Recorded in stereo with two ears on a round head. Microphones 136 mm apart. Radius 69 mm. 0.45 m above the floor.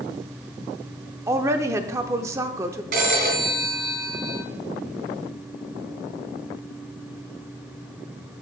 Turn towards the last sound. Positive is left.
turn(degrees=-60)  # may be behind; listen again after turning